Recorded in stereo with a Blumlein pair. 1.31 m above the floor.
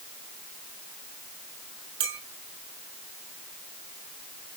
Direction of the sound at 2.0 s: 45° right.